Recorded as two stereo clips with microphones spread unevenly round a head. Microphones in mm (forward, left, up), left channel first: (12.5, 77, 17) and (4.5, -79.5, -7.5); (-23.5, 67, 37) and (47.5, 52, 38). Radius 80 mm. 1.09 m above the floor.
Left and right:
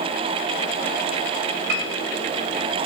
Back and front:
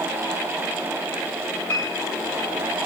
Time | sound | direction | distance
1.7 | a piano | 115° right | 2.5 m